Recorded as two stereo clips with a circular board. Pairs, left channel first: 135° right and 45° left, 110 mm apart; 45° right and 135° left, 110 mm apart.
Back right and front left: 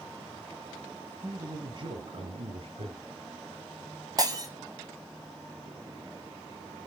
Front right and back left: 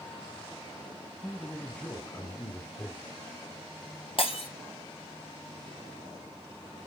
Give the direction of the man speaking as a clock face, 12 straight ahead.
11 o'clock.